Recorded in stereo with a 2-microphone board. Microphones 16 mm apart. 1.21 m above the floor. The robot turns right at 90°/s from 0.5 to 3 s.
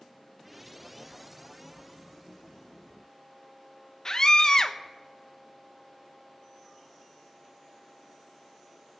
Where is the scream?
35° left (ahead or behind), 0.9 m.